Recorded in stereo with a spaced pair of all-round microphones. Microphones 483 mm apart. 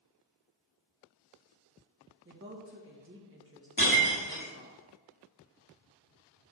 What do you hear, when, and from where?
2.2 s a woman speaking: 25° right (ahead or behind), 1.5 m
3.8 s breaking glass: 40° left (ahead or behind), 2 m